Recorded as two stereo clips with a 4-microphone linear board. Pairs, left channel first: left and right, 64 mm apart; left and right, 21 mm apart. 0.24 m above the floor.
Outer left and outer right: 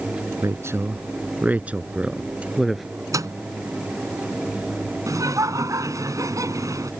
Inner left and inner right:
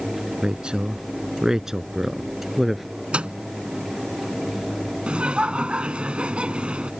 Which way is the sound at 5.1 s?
60° right (ahead or behind).